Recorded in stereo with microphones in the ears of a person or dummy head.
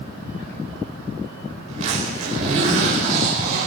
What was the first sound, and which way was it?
A zipper, 45° right (ahead or behind).